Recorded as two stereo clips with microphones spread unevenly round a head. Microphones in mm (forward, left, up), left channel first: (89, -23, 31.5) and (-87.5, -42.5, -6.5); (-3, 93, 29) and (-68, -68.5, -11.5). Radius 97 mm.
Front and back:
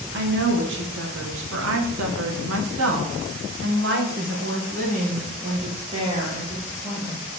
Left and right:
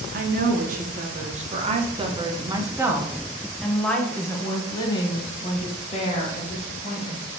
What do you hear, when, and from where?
0.1 s a woman speaking: 150° right, 3 m; by 7.2 s 110° left, 3.5 m